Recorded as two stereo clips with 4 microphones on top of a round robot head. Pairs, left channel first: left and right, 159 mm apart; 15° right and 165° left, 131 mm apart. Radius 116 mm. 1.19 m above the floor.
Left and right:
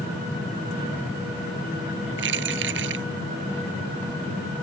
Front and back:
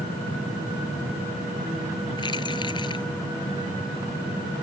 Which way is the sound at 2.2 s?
80° right.